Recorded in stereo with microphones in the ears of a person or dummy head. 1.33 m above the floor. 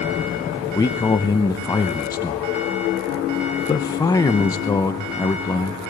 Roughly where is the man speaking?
Centre.